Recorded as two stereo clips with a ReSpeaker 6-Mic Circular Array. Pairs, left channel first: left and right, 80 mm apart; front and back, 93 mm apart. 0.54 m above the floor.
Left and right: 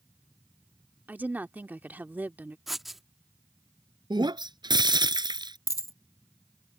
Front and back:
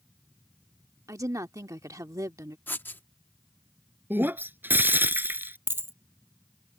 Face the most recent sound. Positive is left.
turn(degrees=120)